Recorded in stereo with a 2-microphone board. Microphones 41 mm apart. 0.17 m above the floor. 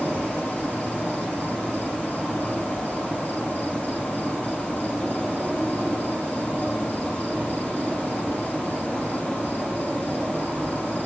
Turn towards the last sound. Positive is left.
turn(degrees=30)  # may be behind; listen again after turning